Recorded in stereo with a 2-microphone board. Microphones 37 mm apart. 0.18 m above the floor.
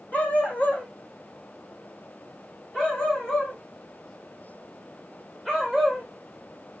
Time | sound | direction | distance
0.1 | a dog barking | 40° left (ahead or behind) | 2.5 m